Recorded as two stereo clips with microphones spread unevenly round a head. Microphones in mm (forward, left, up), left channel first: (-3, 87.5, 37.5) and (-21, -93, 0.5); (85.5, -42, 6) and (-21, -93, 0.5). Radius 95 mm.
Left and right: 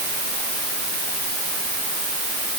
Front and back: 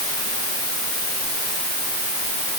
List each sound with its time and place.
Only background noise.